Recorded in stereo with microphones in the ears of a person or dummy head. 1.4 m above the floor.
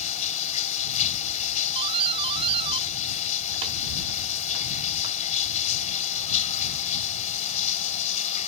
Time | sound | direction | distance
0.0 | running water | 40° left (ahead or behind) | ?
1.8 | a doorbell | 30° right (ahead or behind) | ?